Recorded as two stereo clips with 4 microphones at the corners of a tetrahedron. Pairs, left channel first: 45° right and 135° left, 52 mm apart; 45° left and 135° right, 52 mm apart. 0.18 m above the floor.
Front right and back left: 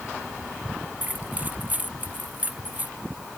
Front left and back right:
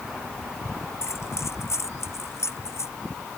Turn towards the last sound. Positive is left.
turn(degrees=75)